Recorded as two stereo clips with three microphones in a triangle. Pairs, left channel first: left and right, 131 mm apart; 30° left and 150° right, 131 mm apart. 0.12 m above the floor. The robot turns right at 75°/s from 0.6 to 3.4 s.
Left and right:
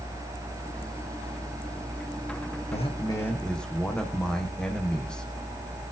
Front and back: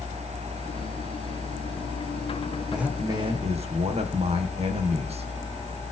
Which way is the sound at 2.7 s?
120° left.